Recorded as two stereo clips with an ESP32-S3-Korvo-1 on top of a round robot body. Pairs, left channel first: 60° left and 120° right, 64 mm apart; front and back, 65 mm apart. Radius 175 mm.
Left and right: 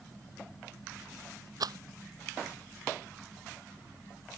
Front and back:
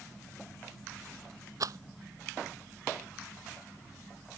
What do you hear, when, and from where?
1.6 s a rattle: 145° right